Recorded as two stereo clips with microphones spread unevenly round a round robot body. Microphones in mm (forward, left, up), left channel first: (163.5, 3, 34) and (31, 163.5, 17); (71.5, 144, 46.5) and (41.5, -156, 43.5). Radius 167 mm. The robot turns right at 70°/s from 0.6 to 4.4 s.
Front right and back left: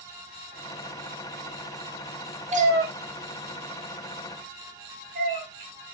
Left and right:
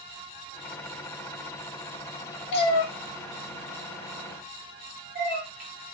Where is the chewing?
I don't hear chewing.